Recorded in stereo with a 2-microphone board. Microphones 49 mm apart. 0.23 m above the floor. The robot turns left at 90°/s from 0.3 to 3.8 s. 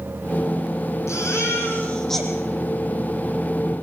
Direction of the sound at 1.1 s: 100° left.